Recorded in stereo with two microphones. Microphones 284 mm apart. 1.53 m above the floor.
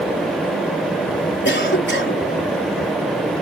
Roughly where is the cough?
Left.